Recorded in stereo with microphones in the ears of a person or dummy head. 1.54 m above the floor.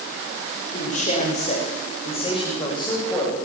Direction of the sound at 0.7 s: 45° left (ahead or behind).